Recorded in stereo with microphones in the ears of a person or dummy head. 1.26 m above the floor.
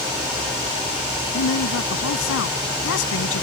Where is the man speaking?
80° left.